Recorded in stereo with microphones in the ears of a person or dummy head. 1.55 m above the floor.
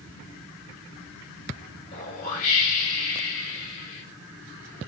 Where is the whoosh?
45° left (ahead or behind), 3 m.